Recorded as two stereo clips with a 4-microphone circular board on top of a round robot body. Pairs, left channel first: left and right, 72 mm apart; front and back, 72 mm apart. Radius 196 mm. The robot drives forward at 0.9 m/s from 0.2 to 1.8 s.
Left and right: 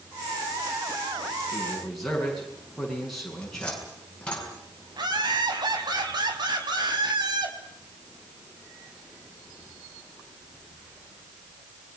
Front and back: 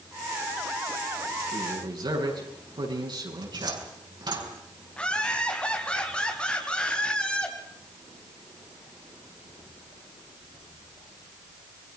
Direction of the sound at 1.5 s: 175° left.